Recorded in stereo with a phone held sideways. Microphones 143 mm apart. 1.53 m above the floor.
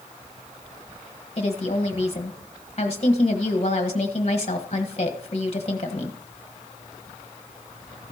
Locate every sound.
1.4 s a woman speaking: 45° left (ahead or behind), 1.4 m